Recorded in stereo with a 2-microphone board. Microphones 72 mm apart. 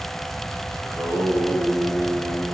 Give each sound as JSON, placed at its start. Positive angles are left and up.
{"t": 0.8, "sound": "singing", "side_deg": 30, "distance_m": 4.0}